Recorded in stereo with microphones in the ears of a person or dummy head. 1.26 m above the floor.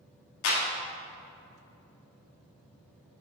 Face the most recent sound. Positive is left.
turn(degrees=70)  # may be behind; listen again after turning